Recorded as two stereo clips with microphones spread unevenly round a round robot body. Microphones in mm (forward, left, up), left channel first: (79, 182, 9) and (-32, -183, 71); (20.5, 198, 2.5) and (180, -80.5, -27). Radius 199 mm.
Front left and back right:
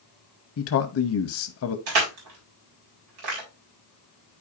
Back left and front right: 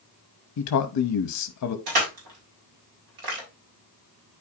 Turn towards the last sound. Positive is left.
turn(degrees=-75)